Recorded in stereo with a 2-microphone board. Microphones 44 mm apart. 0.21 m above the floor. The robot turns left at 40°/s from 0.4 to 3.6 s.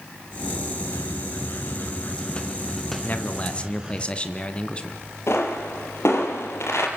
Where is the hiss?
90° left, 3 m; by 4.0 s 20° right, 3 m.